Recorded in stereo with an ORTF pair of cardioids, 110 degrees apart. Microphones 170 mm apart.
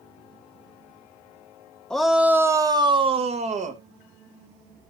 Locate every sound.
1.9 s a shout: 5° left, 0.9 m; by 3.8 s 45° right, 1.4 m